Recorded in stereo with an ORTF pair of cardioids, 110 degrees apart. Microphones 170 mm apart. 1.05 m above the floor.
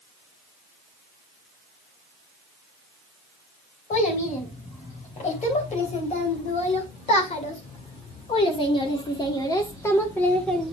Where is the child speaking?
45° left, 4 m; by 10.7 s straight ahead, 1.1 m.